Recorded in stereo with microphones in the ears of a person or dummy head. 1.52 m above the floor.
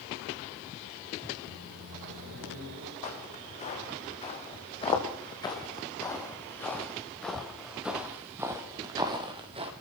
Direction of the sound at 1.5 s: 60° right (ahead or behind).